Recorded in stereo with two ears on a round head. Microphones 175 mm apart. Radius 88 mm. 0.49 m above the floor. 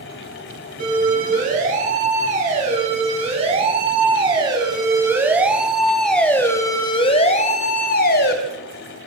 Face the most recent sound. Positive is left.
turn(degrees=55)  # may be behind; listen again after turning